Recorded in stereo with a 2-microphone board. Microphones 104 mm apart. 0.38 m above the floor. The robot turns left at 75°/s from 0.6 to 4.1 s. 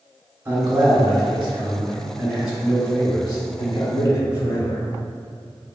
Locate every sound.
0.5 s a man speaking: 30° right, 1.3 m; by 4.8 s 65° left, 1.3 m